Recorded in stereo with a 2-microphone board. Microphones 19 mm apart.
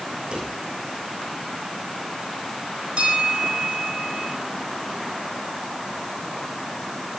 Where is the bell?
70° right (ahead or behind), 9 m.